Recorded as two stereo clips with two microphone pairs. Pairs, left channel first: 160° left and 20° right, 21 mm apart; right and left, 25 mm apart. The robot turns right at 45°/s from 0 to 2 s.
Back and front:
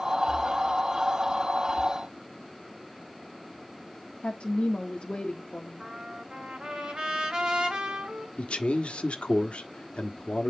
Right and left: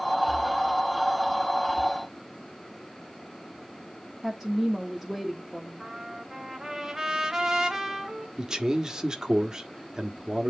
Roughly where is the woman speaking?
Behind.